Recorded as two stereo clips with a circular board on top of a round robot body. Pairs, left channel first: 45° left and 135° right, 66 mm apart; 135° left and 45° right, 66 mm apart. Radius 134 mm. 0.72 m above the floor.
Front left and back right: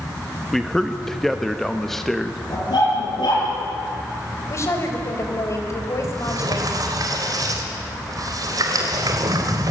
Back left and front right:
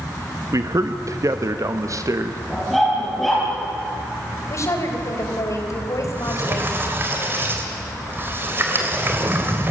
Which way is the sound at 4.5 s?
90° left.